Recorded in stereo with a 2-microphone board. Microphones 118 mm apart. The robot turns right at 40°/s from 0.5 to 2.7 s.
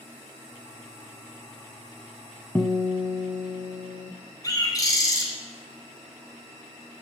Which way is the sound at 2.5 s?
15° left (ahead or behind).